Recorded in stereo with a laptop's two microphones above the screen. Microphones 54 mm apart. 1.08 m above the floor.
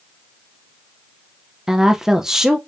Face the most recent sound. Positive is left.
turn(degrees=-10)  # may be behind; listen again after turning